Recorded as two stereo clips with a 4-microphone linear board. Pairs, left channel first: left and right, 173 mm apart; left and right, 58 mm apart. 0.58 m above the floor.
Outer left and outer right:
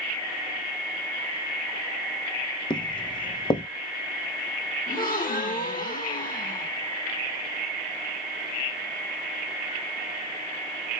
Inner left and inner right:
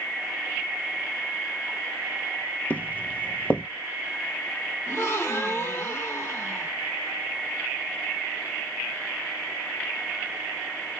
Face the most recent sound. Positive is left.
turn(degrees=50)  # may be behind; listen again after turning